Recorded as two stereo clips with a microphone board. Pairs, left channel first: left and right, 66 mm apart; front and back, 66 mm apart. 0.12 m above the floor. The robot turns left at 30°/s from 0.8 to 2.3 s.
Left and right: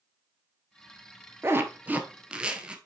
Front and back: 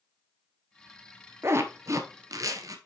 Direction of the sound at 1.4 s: 135° right.